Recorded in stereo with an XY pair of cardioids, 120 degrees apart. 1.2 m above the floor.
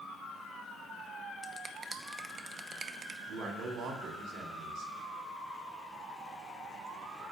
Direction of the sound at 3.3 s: 65° right.